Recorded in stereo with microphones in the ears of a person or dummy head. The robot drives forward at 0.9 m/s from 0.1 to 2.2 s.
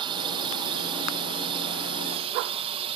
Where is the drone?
25° right (ahead or behind); by 3.0 s 30° right (ahead or behind).